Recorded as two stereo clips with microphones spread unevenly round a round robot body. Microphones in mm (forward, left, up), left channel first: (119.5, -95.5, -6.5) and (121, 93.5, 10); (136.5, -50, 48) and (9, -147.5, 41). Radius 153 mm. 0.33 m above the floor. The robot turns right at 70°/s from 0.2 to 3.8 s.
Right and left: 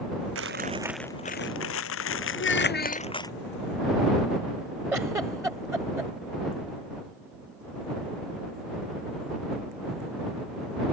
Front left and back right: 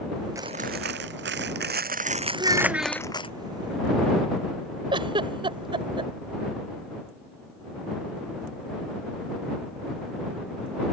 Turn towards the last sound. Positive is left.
turn(degrees=170)